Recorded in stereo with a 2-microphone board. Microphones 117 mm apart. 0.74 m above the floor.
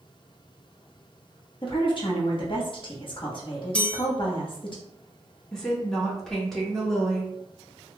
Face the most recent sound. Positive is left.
turn(degrees=5)  # may be behind; listen again after turning